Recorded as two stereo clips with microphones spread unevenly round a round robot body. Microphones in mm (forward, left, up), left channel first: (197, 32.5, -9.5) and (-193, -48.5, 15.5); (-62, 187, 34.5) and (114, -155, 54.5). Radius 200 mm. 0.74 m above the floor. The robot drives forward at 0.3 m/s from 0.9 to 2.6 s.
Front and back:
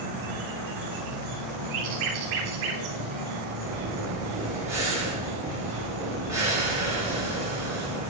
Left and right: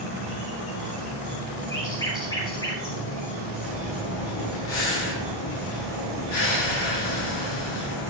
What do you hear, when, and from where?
0.0 s an insect: 170° left, 2.5 m
1.7 s a bird: 160° right, 3 m
3.6 s breathing: 110° left, 5.5 m